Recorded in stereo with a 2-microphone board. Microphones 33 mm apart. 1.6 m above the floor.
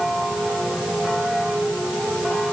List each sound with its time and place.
Only background noise.